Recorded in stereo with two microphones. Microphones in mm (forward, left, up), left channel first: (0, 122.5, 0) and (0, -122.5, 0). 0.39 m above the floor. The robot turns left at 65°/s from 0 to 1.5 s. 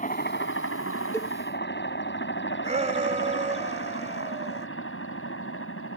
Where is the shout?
30° right (ahead or behind).